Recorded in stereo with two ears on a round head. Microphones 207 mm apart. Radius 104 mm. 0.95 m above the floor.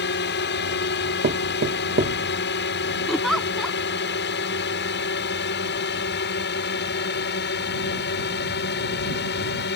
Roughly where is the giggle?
Centre.